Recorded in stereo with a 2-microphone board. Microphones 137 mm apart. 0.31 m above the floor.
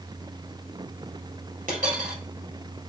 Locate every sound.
1.7 s a dropped coin: 75° right (ahead or behind), 3.5 m